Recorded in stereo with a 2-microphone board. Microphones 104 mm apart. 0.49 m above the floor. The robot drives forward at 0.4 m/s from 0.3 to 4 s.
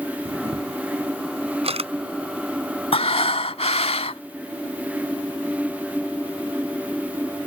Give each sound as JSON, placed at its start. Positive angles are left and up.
{"t": 0.2, "sound": "a camera shutter", "side_deg": -75}
{"t": 2.9, "sound": "breathing", "side_deg": 70}